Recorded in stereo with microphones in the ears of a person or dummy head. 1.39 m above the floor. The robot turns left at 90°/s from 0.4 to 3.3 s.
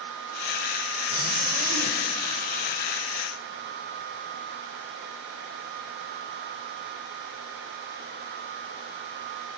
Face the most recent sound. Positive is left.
turn(degrees=125)